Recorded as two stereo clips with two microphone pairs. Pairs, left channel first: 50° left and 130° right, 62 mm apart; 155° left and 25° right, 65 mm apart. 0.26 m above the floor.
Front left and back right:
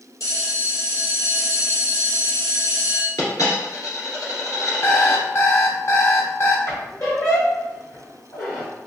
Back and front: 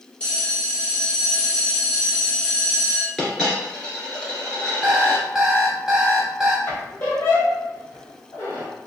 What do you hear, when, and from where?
0.2 s a bell: 80° left, 1.9 m
3.2 s a dropped coin: 75° left, 1.7 m
4.8 s an alarm clock: 55° left, 0.7 m
6.7 s a squeak: 95° left, 1.7 m